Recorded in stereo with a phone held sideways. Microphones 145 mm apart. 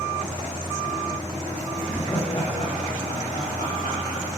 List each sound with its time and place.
1.8 s laughter: 10° left (ahead or behind), 0.8 m; by 4.2 s 80° left, 1.7 m